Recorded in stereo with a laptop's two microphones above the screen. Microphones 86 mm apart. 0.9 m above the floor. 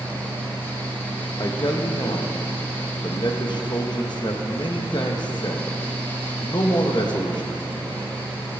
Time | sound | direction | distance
0.0 | a fan | 25° left (ahead or behind) | 4 m
1.4 | a man speaking | 50° left (ahead or behind) | 1.0 m